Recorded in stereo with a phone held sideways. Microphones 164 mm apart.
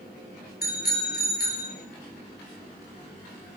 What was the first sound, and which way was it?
A bicycle bell, 65° left (ahead or behind).